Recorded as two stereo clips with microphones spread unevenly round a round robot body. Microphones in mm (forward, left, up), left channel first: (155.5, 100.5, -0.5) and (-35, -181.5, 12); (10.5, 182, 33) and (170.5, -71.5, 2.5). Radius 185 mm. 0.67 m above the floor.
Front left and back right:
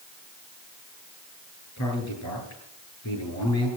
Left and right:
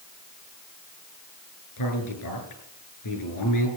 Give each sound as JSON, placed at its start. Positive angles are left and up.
{"t": 1.8, "sound": "a man speaking", "azimuth_deg": 105, "distance_m": 10.0}